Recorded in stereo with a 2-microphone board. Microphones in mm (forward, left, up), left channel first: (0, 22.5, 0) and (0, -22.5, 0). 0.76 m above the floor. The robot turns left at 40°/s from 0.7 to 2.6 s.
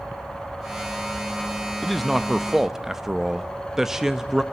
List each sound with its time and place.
1.8 s a man speaking: centre (ahead or behind), 0.8 m; by 4.4 s 10° right (ahead or behind), 0.8 m